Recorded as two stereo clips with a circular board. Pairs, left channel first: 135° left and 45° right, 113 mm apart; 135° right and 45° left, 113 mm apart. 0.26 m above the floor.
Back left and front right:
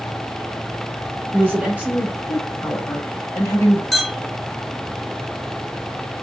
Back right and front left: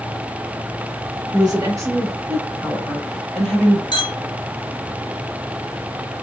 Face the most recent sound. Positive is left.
turn(degrees=-140)